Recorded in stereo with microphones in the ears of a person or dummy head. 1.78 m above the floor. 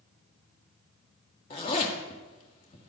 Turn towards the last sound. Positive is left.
turn(degrees=30)  # may be behind; listen again after turning